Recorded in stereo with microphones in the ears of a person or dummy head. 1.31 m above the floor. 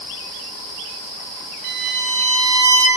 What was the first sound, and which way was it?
A violin, 65° right (ahead or behind).